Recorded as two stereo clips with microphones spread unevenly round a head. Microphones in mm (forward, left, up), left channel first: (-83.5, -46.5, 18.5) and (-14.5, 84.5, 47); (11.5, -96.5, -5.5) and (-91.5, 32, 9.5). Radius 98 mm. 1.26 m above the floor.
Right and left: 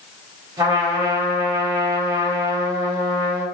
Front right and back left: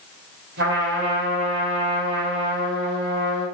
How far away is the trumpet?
About 4.5 m.